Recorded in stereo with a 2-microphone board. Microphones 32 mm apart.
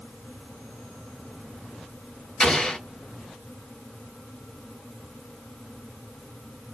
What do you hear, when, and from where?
2.4 s an explosion: 30° left (ahead or behind), 3 m